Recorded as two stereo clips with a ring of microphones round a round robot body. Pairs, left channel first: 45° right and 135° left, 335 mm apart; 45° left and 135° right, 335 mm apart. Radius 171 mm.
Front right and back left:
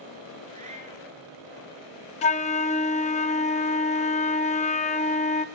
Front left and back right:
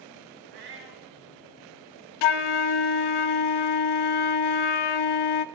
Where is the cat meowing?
155° right, 2 m.